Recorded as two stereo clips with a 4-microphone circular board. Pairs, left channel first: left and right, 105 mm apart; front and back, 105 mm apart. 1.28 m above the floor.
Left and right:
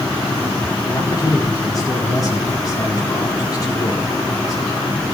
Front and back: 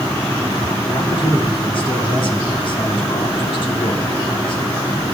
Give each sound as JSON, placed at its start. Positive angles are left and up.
{"t": 0.9, "sound": "a man speaking", "azimuth_deg": 35, "distance_m": 4.0}